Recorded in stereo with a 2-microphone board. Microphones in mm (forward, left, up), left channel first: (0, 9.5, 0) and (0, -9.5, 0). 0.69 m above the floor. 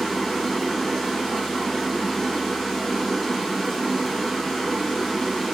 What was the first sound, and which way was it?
Running water, centre (ahead or behind).